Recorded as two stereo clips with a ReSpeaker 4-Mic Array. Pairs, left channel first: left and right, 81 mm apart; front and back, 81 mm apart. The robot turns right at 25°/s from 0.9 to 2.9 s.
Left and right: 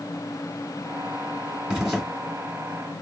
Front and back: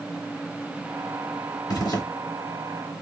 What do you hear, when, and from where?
1.7 s a zipper: 10° right, 2.5 m; by 2.0 s straight ahead, 2.5 m